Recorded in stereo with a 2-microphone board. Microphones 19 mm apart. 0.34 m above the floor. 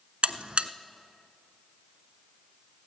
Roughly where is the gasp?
No gasp in this recording.